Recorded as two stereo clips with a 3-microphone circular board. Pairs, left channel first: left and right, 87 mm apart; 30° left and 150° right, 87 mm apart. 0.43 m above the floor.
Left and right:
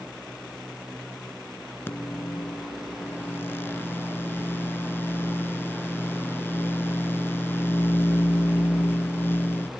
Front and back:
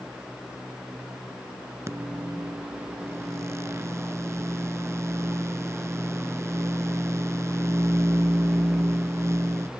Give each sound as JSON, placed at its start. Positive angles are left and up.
{"t": 1.9, "sound": "a microwave", "azimuth_deg": 155}